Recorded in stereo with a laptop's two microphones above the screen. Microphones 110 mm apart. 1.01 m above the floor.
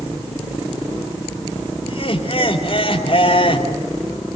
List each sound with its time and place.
1.9 s laughter: 55° left (ahead or behind), 2.5 m